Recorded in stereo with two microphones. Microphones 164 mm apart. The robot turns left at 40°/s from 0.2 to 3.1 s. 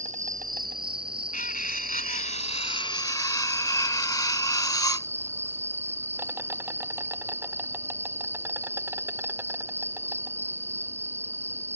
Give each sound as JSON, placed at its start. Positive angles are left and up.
{"t": 0.0, "sound": "an insect", "azimuth_deg": -50}
{"t": 1.3, "sound": "cutlery clinking", "azimuth_deg": 100}